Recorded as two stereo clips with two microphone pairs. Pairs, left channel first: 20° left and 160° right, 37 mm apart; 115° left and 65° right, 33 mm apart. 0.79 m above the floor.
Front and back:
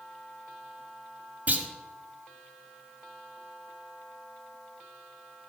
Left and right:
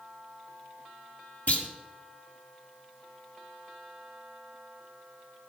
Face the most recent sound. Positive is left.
turn(degrees=150)